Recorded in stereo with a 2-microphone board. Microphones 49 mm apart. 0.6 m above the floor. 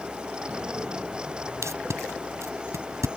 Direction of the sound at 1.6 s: 75° right (ahead or behind).